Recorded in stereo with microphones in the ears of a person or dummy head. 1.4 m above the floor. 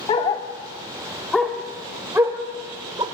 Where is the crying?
No crying in this recording.